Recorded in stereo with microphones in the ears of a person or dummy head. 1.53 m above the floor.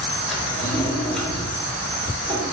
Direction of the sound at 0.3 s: Centre (ahead or behind).